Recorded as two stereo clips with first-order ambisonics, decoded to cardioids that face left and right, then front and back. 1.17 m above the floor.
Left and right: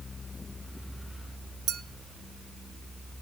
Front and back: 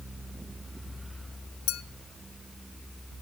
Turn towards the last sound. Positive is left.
turn(degrees=-35)